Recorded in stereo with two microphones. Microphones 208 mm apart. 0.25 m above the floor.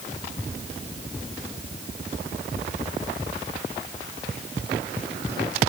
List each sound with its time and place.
Only background noise.